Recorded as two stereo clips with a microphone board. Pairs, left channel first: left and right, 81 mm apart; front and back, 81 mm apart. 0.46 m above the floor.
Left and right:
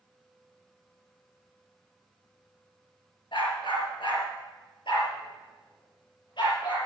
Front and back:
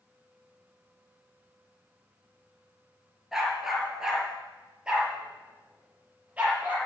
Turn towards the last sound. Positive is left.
turn(degrees=110)